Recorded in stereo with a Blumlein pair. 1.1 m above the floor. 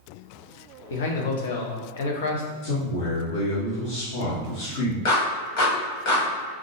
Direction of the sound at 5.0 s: 45° left.